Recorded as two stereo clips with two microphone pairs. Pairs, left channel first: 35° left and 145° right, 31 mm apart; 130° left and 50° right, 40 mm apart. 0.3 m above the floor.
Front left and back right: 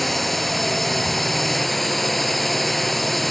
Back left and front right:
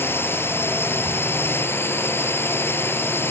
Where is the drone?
120° left.